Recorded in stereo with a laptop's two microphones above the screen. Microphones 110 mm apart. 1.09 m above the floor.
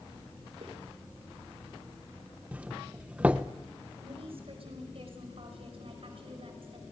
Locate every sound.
0.6 s footsteps: 55° right (ahead or behind), 5.5 m
2.5 s a doorbell: 10° right (ahead or behind), 0.8 m
4.0 s a woman speaking: 60° right (ahead or behind), 5.5 m